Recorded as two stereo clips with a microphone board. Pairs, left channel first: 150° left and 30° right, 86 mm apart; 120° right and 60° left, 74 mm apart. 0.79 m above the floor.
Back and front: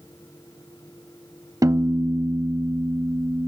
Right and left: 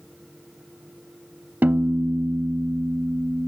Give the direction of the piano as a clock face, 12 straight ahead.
12 o'clock.